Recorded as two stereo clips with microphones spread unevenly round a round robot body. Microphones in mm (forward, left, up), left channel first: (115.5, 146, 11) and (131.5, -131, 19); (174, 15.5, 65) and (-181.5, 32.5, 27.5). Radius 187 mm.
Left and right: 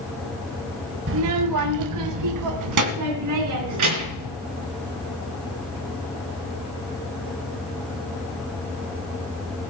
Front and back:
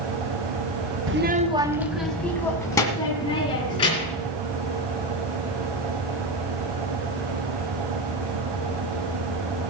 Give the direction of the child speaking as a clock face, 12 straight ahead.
5 o'clock.